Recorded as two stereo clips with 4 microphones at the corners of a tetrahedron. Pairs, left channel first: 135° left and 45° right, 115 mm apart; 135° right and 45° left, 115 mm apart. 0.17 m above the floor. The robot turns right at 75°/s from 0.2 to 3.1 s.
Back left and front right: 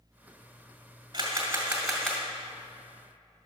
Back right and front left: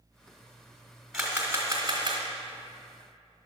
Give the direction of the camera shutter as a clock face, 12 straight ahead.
1 o'clock.